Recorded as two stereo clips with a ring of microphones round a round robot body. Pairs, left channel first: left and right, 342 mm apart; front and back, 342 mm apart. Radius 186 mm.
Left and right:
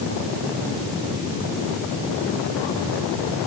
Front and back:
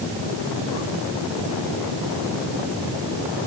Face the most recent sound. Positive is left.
No sound to turn to.